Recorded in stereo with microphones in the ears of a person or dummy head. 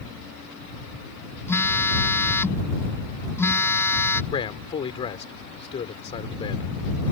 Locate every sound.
1.5 s a phone buzzing: 10° left (ahead or behind)
4.3 s a man speaking: 25° left (ahead or behind)